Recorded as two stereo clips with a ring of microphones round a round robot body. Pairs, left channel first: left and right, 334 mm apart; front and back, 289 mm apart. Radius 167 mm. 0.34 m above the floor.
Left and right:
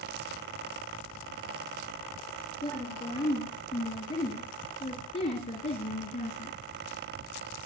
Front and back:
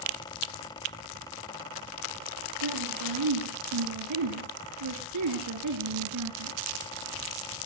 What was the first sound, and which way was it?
A woman speaking, 170° left.